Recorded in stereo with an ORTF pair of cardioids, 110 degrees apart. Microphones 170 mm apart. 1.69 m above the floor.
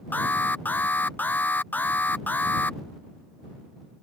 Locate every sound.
0.1 s an alarm: 10° left